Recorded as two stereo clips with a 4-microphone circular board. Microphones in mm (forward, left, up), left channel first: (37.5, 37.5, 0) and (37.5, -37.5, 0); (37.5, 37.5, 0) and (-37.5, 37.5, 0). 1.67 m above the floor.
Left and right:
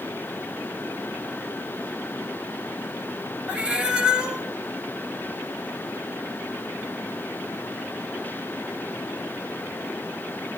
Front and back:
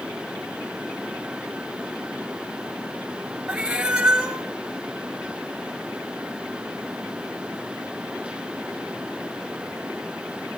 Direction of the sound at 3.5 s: 135° right.